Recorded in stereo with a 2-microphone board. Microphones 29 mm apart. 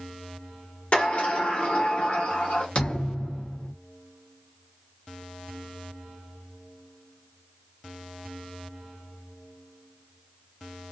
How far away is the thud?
About 0.9 m.